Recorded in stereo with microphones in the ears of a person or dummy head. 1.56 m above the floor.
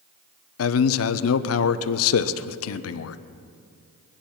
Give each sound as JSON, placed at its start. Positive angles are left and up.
{"t": 0.6, "sound": "a man speaking", "side_deg": 75, "distance_m": 0.8}